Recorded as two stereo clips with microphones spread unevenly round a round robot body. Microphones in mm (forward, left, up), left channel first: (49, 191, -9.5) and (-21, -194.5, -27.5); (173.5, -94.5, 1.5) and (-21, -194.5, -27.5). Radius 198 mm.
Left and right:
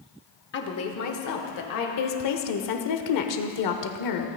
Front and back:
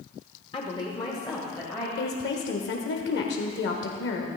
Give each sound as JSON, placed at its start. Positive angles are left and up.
{"t": 0.5, "sound": "a woman speaking", "azimuth_deg": 80, "distance_m": 1.2}
{"t": 2.0, "sound": "a woman speaking", "azimuth_deg": 60, "distance_m": 1.2}